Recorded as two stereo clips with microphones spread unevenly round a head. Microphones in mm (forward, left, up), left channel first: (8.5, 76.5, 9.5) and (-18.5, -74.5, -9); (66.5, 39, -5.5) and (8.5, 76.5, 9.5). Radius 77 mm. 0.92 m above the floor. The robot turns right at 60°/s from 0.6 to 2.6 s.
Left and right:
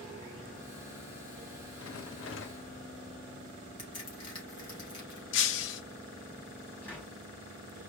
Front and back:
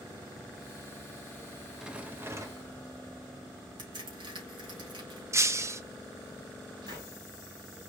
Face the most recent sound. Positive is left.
turn(degrees=155)